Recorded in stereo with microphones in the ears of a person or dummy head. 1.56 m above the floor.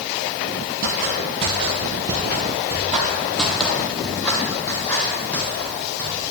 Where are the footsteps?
40° right (ahead or behind), 2.0 m; by 6.2 s 15° left (ahead or behind), 4 m.